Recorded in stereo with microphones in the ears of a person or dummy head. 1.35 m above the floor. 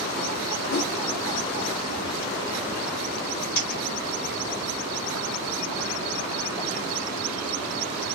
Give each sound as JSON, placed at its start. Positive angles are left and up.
{"t": 0.7, "sound": "a whoosh", "side_deg": 45, "distance_m": 0.6}
{"t": 3.5, "sound": "a dropped coin", "side_deg": 15, "distance_m": 0.9}